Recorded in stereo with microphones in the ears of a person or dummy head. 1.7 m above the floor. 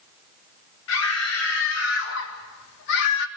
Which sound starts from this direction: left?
A scream, at 0.9 s.